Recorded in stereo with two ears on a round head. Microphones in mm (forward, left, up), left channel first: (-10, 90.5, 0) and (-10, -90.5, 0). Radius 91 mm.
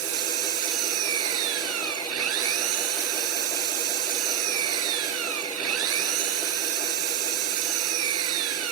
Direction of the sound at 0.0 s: 80° right.